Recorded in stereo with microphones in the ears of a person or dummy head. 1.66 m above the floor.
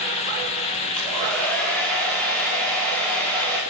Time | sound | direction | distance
1.0 | a hair dryer | 5° left (ahead or behind) | 5 m